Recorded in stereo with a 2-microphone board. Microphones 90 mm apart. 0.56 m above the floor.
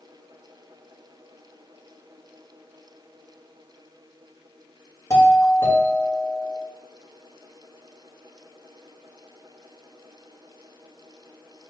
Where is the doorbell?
40° left (ahead or behind), 1.8 m.